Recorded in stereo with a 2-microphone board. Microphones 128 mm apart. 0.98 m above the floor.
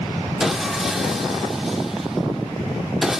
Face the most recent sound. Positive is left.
turn(degrees=0)  # may be behind; listen again after turning